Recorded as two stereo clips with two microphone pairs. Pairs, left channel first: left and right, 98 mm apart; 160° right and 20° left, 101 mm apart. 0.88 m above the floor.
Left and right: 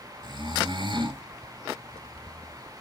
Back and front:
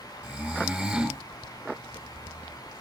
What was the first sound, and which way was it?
Snoring, 55° right.